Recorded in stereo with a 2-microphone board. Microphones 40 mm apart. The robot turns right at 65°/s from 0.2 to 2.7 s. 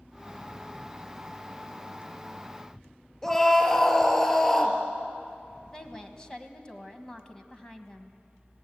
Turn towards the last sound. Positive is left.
turn(degrees=20)  # may be behind; listen again after turning